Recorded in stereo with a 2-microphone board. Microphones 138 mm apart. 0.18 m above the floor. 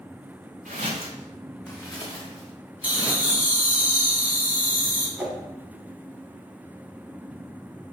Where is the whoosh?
10° right (ahead or behind), 0.7 m.